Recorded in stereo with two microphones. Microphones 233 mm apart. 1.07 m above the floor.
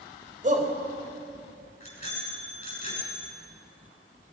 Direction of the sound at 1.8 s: 25° left (ahead or behind).